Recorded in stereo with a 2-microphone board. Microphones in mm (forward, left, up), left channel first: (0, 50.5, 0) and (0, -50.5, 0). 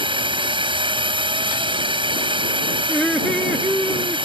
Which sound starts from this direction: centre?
Laughter, at 2.9 s.